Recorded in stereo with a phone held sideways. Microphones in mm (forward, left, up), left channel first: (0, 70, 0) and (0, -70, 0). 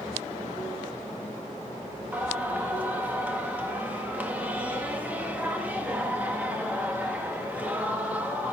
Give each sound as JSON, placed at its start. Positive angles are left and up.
{"t": 2.1, "sound": "singing", "side_deg": -10, "distance_m": 1.5}